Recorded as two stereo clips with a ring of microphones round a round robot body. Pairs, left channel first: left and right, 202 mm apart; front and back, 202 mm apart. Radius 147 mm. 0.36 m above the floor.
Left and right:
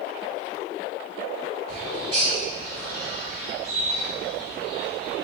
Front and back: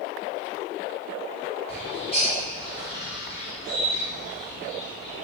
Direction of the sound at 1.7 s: 90° right.